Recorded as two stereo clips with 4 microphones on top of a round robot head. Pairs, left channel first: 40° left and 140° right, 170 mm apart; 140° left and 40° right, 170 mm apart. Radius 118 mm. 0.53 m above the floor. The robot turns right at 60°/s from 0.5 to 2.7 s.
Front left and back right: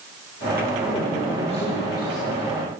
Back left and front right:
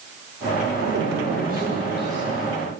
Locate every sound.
0.8 s a man speaking: 55° right, 2.0 m; by 2.5 s 50° left, 2.0 m